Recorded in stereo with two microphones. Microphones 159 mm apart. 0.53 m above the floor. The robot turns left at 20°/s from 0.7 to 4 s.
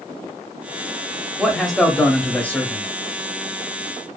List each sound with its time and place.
1.4 s a man speaking: centre (ahead or behind), 0.7 m; by 2.9 s 15° left (ahead or behind), 0.7 m